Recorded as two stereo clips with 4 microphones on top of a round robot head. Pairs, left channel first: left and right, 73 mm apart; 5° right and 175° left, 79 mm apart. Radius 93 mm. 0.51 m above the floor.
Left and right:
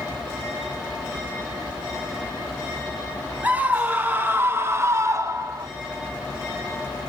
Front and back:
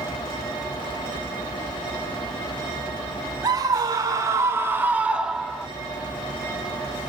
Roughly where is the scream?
Behind right.